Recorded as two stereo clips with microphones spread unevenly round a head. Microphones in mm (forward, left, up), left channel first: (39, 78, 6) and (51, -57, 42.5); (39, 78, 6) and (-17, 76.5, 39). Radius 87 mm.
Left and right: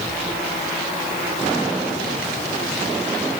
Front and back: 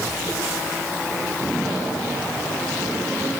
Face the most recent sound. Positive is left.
No sound to turn to.